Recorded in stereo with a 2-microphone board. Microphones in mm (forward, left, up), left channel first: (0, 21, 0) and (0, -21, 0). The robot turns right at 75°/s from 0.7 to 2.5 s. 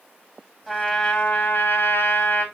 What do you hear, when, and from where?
0.7 s a trumpet: 5° right, 2.5 m; by 2.5 s 130° left, 2.5 m